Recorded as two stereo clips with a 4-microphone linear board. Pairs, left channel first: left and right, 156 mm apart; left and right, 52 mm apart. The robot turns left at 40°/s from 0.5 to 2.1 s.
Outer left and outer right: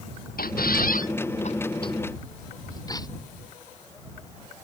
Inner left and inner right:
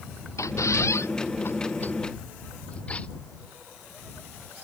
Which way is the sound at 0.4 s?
90° left.